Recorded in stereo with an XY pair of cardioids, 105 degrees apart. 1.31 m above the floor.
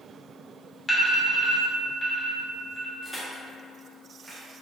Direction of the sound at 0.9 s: 25° left.